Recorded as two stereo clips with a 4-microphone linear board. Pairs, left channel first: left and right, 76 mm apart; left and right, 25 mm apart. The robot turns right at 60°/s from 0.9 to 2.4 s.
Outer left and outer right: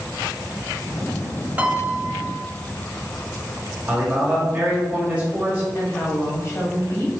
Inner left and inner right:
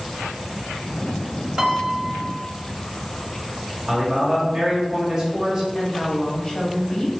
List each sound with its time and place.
1.6 s a piano: 150° right, 0.7 m; by 2.4 s 100° right, 0.7 m
3.9 s a man speaking: 20° right (ahead or behind), 1.4 m
5.8 s a woman speaking: 35° left (ahead or behind), 1.1 m